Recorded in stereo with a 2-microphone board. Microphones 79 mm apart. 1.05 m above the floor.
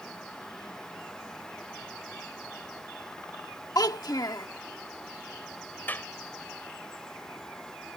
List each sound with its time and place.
3.8 s a child speaking: 55° left (ahead or behind)
5.9 s a clap: 25° left (ahead or behind)